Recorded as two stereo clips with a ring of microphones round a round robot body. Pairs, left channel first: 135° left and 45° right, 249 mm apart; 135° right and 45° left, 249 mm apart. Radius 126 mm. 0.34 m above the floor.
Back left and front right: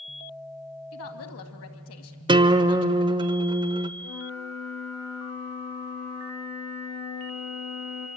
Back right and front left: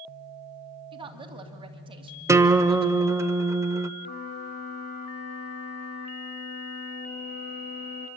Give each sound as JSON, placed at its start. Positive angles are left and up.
{"t": 0.9, "sound": "a woman speaking", "azimuth_deg": 115, "distance_m": 2.5}
{"t": 2.3, "sound": "a guitar", "azimuth_deg": -15, "distance_m": 0.8}
{"t": 4.0, "sound": "a flute", "azimuth_deg": 170, "distance_m": 5.5}